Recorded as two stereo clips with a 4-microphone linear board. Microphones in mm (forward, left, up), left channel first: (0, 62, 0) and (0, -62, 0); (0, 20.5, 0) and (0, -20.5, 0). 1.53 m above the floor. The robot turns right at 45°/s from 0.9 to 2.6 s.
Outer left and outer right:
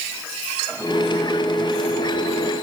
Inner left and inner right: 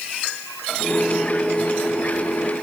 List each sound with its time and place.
Only background noise.